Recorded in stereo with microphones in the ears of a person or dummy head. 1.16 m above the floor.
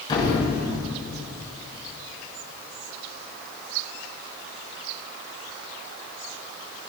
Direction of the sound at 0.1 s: 20° left (ahead or behind).